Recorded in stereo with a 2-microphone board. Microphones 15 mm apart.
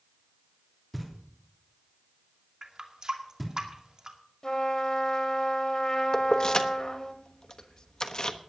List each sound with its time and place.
0.9 s knocking: centre (ahead or behind), 3 m
2.6 s a running tap: 45° right (ahead or behind), 2.0 m
4.4 s a trumpet: 40° left (ahead or behind), 1.7 m
6.1 s keys jangling: 45° left (ahead or behind), 1.0 m